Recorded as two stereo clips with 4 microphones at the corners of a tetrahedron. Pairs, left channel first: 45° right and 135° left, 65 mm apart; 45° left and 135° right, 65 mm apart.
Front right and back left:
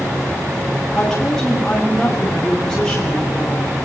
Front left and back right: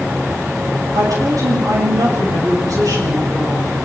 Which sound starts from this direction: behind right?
A woman speaking, at 0.9 s.